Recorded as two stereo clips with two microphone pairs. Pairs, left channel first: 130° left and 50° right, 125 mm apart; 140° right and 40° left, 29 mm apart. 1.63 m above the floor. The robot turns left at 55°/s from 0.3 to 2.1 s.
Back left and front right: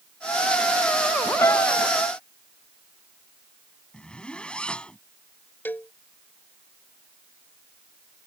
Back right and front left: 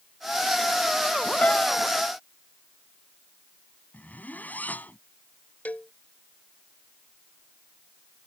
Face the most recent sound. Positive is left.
turn(degrees=-155)